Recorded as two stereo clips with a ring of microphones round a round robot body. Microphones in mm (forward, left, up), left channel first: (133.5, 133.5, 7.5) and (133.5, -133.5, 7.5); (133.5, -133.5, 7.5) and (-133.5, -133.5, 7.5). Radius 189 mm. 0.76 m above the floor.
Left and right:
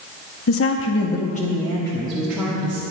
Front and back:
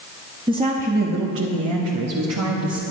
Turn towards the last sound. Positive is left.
turn(degrees=-165)